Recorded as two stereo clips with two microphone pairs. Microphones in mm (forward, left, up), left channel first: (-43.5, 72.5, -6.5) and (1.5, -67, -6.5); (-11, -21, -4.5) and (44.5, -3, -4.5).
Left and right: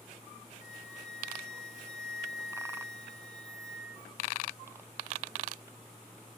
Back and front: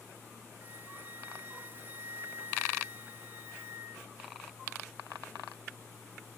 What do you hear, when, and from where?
0.6 s a flute: 75° left